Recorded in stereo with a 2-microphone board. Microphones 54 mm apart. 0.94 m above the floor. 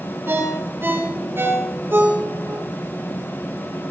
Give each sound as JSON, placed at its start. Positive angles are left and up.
{"t": 0.3, "sound": "a ringtone", "side_deg": -45, "distance_m": 7.5}